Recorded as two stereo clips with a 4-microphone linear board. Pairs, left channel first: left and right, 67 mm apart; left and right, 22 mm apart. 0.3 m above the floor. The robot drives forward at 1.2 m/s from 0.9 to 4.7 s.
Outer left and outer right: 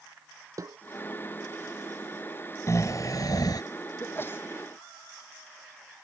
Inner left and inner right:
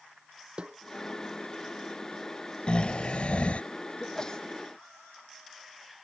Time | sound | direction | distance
0.6 | a snare drum | 55° right (ahead or behind) | ?
2.7 | snoring | 45° left (ahead or behind) | ?
4.0 | a sneeze | 35° left (ahead or behind) | ?